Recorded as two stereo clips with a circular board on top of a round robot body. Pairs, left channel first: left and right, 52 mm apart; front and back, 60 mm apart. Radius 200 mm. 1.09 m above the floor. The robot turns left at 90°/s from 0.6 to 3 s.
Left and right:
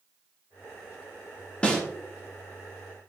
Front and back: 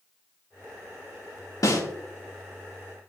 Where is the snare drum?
20° left, 2 m; by 1.8 s straight ahead, 2 m.